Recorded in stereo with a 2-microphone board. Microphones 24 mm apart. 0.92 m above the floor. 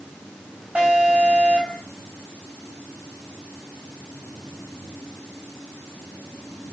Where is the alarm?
75° right (ahead or behind), 7.5 m.